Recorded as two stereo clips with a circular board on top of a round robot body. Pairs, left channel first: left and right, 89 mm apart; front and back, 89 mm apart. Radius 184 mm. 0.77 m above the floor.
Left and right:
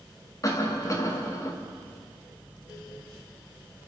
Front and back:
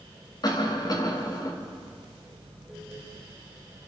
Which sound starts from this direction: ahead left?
A cough, at 0.4 s.